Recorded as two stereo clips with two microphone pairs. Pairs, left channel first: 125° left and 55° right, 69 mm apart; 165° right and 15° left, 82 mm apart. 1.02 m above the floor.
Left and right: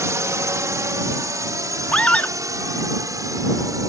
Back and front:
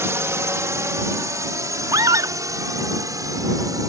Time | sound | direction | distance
0.0 | a drone | 35° right | ?
1.9 | a scream | 50° left | ?